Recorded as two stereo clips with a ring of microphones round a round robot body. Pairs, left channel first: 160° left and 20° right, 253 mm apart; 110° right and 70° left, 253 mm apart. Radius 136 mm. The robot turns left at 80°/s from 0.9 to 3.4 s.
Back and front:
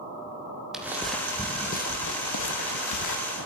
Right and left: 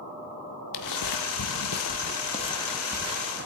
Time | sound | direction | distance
0.7 | footsteps | 110° right | 1.0 m